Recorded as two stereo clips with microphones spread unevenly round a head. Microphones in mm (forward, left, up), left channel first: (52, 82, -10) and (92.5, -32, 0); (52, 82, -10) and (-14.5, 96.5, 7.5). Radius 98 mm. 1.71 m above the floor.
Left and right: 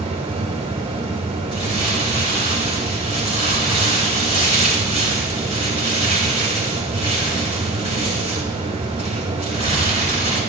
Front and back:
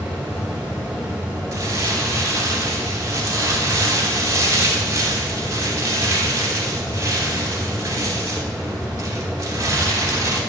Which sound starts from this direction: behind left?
Crumpling, at 1.5 s.